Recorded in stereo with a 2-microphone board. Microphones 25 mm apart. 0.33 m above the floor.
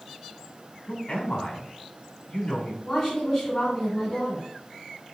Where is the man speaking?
30° left (ahead or behind), 2.5 m.